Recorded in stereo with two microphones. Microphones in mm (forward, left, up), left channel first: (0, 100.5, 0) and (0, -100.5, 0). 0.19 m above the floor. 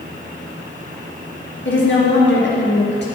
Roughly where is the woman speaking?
Left.